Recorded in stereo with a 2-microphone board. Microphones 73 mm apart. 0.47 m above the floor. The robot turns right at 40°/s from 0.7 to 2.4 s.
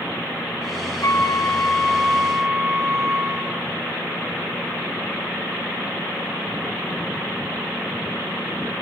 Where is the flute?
135° left, 2 m; by 3.6 s 170° right, 2 m.